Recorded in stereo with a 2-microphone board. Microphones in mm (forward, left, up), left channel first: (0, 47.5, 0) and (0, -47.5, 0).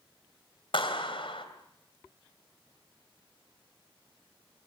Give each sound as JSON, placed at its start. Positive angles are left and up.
{"t": 0.7, "sound": "a clap", "side_deg": 65, "distance_m": 3.0}